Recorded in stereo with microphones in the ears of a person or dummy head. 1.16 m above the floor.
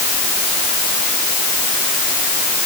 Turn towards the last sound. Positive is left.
No sound to turn to.